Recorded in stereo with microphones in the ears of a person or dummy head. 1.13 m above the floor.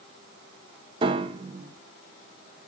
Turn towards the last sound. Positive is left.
turn(degrees=-35)  # may be behind; listen again after turning